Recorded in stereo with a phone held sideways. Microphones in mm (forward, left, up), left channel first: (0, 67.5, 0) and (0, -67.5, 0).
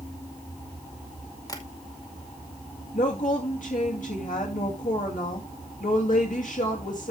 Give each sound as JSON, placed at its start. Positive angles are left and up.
{"t": 1.5, "sound": "tapping", "side_deg": 25, "distance_m": 2.0}
{"t": 2.9, "sound": "a woman speaking", "side_deg": 75, "distance_m": 2.5}